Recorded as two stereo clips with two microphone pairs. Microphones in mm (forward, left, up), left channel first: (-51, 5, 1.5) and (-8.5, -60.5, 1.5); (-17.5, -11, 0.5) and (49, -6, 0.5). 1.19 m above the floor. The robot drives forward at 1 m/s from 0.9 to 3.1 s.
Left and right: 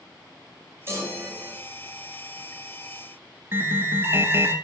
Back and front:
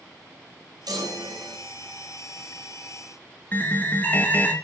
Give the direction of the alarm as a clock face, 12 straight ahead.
4 o'clock.